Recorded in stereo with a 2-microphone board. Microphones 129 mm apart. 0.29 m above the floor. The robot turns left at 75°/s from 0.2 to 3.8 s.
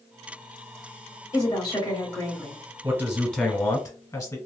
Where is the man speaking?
150° right, 1.1 m; by 4.4 s 140° left, 1.1 m.